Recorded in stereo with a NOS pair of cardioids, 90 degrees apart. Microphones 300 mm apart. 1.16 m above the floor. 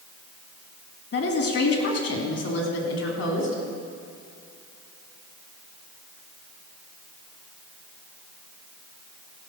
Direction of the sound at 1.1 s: 50° left.